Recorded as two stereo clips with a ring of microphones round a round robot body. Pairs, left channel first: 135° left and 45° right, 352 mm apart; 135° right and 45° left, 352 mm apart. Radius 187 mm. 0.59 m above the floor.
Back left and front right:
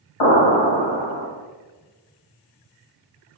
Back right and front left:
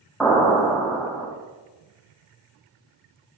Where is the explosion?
135° left, 2 m.